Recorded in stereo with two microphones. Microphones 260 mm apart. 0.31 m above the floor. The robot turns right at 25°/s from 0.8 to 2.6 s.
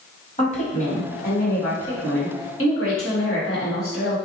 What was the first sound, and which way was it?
A woman speaking, 35° left.